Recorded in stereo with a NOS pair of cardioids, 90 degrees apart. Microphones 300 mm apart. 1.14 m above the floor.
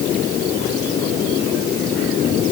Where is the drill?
No drill in this recording.